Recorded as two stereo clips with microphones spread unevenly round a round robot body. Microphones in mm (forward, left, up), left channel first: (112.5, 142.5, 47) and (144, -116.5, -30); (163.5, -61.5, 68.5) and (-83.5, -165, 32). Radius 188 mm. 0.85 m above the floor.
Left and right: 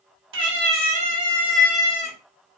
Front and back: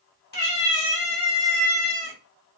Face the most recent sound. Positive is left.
turn(degrees=45)